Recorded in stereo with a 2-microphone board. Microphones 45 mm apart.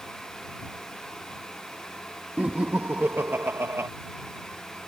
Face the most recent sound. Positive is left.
turn(degrees=-75)  # may be behind; listen again after turning